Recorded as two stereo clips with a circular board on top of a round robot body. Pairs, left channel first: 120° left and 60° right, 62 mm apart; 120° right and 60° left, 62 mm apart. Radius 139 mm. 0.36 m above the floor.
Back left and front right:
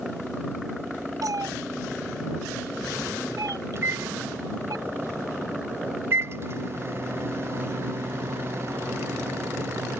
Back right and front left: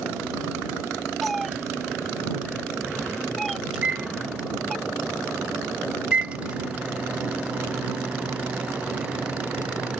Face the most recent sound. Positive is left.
turn(degrees=-10)